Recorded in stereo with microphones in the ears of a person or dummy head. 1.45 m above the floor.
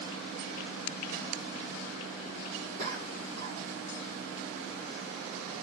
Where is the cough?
55° right (ahead or behind), 2.5 m.